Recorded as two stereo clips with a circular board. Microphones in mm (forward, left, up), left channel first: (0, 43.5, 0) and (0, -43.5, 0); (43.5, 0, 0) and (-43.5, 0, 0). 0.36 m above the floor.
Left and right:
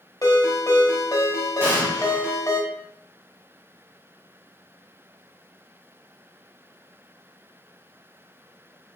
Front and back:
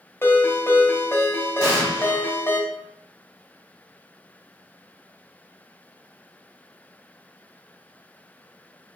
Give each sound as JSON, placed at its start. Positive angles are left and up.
{"t": 0.2, "sound": "a ringtone", "azimuth_deg": 55, "distance_m": 0.8}
{"t": 1.6, "sound": "an explosion", "azimuth_deg": -135, "distance_m": 1.1}